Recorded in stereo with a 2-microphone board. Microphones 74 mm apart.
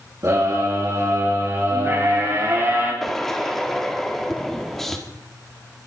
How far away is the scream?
About 8.5 m.